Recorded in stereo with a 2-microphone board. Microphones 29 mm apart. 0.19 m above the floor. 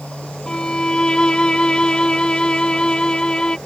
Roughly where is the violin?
Left.